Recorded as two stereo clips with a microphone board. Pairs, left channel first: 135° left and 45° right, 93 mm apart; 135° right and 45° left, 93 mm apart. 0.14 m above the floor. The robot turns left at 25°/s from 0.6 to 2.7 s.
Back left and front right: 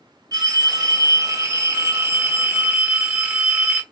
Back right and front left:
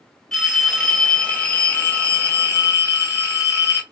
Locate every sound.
0.3 s a phone ringing: 50° right, 0.8 m; by 3.8 s 105° right, 0.8 m